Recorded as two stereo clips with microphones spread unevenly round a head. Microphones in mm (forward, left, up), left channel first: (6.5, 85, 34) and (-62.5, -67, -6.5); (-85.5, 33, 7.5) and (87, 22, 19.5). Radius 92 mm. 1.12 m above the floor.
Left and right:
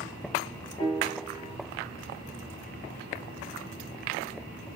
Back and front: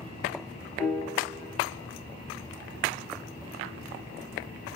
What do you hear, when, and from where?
0.8 s a piano: 90° left, 1.2 m